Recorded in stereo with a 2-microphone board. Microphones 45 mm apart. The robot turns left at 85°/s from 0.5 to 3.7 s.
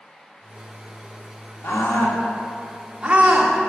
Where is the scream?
60° left (ahead or behind), 2.0 m; by 3.5 s 55° right (ahead or behind), 2.0 m.